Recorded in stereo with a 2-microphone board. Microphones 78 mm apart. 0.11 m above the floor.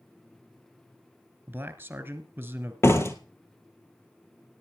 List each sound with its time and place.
1.5 s a man speaking: 25° right (ahead or behind), 1.3 m
2.8 s a door slam: 35° left (ahead or behind), 1.7 m